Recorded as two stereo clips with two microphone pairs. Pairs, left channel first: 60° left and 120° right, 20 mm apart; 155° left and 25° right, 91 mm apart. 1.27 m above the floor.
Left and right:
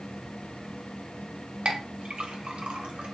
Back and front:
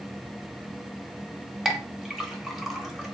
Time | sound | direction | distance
1.6 | a clink | 110° right | 0.7 m